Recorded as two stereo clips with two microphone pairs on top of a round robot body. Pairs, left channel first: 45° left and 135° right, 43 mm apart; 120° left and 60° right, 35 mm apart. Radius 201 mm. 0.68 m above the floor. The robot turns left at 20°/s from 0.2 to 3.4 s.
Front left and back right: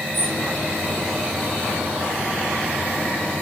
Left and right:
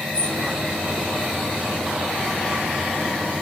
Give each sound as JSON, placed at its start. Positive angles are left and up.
{"t": 0.1, "sound": "a bird", "azimuth_deg": -175, "distance_m": 2.0}